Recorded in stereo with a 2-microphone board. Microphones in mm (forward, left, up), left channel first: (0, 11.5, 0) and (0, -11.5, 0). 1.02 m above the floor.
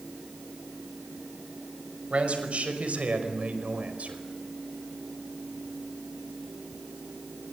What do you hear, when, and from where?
2.1 s a man speaking: 65° right (ahead or behind), 5 m; by 4.2 s 80° right, 4.5 m